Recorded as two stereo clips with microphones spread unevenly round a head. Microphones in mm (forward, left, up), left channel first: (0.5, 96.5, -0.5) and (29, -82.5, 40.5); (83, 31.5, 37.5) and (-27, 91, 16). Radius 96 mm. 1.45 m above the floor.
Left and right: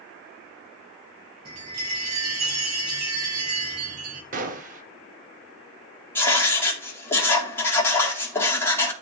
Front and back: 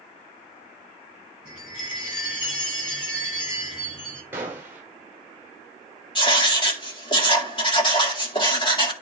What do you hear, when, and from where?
1.4 s a chime: 120° right, 7 m
4.3 s a gunshot: 135° right, 1.0 m
6.2 s writing: 20° left, 2 m